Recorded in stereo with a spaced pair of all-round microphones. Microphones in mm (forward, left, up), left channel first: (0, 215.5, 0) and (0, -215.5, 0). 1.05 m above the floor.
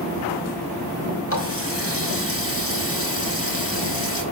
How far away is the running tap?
About 4.5 m.